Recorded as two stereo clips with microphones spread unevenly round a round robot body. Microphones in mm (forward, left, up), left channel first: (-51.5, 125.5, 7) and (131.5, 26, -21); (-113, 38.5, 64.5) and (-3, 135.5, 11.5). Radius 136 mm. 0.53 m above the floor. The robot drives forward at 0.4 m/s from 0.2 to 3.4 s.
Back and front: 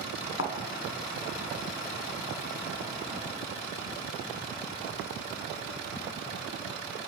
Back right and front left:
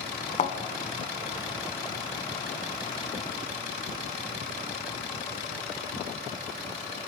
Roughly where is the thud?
Behind.